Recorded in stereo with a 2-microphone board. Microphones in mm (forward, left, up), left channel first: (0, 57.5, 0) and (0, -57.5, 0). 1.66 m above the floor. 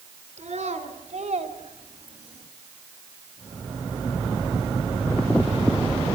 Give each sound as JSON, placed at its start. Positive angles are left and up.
{"t": 0.4, "sound": "a child speaking", "side_deg": -85, "distance_m": 4.5}